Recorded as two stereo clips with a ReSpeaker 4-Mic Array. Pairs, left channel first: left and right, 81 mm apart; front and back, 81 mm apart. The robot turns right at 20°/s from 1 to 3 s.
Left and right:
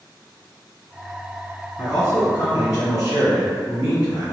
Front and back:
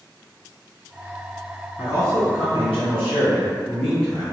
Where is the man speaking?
45° left, 1.9 m; by 4.2 s 70° left, 1.9 m.